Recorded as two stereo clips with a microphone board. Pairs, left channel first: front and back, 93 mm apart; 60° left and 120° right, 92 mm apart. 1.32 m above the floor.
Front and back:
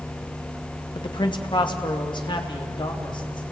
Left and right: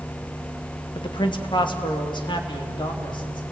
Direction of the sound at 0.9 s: 30° left.